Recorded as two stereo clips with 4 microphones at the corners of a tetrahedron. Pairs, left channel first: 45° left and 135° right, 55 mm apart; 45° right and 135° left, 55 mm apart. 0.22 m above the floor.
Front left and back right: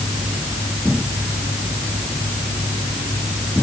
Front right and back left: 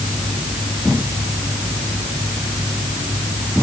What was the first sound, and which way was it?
Only background noise.